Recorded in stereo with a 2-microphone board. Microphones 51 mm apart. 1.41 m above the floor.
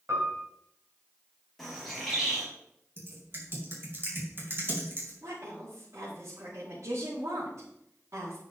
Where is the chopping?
I don't hear chopping.